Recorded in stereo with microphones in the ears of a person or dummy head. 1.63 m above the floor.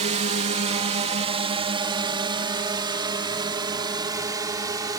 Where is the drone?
35° right (ahead or behind); by 5.0 s 20° right (ahead or behind).